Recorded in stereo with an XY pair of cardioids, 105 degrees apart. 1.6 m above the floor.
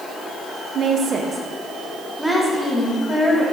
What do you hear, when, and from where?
0.8 s a woman speaking: 55° right, 1.2 m; by 3.4 s 15° left, 2.5 m